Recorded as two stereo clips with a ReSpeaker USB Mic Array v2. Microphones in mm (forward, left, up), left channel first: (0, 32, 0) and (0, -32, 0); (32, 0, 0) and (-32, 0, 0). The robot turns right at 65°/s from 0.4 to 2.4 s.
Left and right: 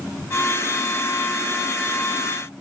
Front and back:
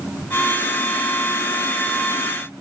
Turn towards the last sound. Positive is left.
No sound to turn to.